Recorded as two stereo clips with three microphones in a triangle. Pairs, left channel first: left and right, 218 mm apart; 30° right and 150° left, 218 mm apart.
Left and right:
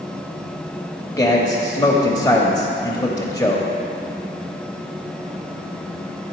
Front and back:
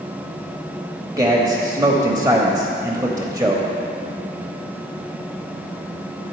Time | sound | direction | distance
1.2 | a man speaking | 115° left | 0.9 m